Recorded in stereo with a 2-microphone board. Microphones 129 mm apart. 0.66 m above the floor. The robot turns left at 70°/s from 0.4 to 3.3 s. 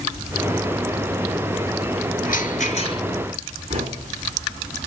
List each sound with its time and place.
2.2 s a rattle: 90° left, 4 m; by 3.0 s 35° left, 4 m
3.7 s knocking: 50° right (ahead or behind), 3.5 m